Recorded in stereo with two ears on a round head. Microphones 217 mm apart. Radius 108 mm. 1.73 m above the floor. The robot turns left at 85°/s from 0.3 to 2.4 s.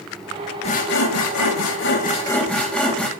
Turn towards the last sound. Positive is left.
turn(degrees=5)